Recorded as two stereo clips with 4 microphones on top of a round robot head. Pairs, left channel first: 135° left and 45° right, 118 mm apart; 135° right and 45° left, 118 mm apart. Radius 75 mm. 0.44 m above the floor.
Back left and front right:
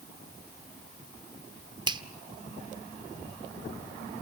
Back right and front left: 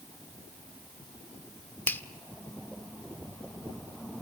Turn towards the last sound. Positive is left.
turn(degrees=-65)